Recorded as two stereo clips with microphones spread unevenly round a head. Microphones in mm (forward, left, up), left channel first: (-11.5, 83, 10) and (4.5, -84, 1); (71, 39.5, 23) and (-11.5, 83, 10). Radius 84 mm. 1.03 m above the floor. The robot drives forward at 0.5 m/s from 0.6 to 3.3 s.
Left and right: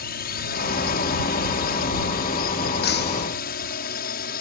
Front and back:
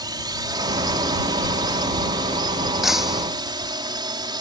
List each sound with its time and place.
0.0 s a drone: 120° left
2.8 s breaking glass: 65° left